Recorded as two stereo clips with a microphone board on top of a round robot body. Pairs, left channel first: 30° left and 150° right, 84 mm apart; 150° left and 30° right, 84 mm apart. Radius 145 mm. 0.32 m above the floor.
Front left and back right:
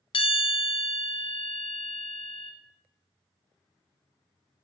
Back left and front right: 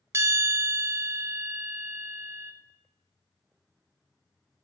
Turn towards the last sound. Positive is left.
turn(degrees=25)